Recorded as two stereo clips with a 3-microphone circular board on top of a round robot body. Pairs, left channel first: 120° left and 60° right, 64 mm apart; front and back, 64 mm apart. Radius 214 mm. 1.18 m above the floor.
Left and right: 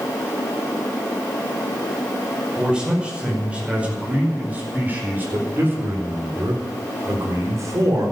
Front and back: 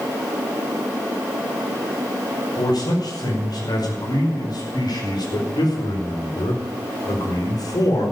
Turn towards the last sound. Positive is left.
turn(degrees=-20)